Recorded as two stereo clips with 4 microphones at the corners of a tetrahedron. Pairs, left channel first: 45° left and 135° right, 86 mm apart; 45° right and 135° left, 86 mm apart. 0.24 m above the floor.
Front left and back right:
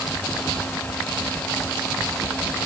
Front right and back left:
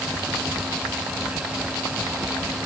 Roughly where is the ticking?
I don't hear ticking.